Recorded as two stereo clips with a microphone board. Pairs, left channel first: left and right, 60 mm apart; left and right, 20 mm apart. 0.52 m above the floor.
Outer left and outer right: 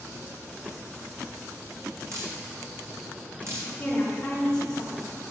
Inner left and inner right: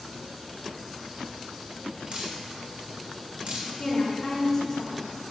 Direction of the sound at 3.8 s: 20° left (ahead or behind).